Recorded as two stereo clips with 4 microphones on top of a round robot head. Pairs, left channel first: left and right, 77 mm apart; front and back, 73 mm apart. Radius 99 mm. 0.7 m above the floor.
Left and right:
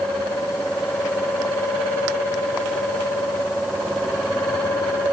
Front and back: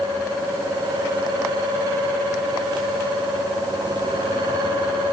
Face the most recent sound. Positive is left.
No sound to turn to.